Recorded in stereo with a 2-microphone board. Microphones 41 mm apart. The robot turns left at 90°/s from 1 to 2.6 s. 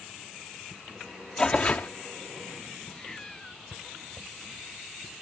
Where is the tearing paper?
160° left; by 1.9 s 115° left.